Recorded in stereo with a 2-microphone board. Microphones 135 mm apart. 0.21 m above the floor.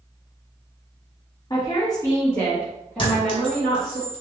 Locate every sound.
1.5 s a woman speaking: 35° left (ahead or behind), 1.2 m; by 4.0 s 5° right (ahead or behind), 2 m
3.0 s a clink: 40° left (ahead or behind), 1.2 m